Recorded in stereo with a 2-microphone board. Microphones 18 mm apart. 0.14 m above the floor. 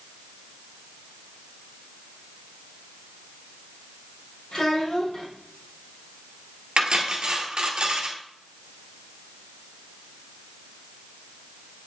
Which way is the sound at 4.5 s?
45° left (ahead or behind).